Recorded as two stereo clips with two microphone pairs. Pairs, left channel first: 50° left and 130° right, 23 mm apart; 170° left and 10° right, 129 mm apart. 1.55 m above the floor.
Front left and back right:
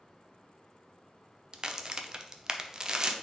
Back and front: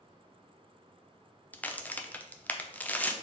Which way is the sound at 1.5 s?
125° right.